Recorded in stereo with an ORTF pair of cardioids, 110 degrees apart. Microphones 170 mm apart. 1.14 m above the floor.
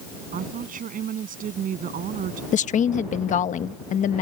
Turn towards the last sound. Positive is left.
turn(degrees=45)